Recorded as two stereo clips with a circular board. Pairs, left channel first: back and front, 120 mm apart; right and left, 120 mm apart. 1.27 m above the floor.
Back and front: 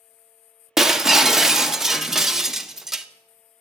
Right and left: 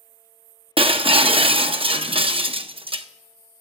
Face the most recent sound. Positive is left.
turn(degrees=85)